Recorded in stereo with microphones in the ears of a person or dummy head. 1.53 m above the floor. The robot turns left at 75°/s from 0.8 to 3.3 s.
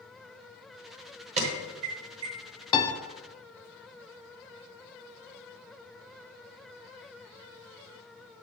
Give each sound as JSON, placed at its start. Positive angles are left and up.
{"t": 1.4, "sound": "an alarm", "side_deg": -35, "distance_m": 1.1}
{"t": 2.7, "sound": "a piano", "side_deg": 25, "distance_m": 0.6}